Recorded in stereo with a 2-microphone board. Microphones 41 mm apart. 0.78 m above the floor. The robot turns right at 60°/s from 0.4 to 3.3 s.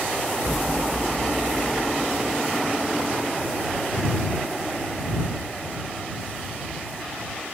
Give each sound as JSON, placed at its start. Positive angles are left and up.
{"t": 0.4, "sound": "an explosion", "azimuth_deg": -80}